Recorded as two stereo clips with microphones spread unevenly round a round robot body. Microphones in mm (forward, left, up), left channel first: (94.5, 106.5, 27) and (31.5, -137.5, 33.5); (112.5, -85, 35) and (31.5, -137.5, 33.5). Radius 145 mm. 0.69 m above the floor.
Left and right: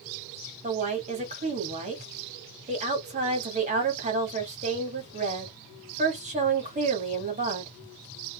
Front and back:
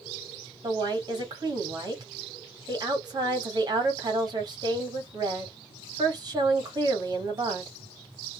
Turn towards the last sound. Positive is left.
turn(degrees=-160)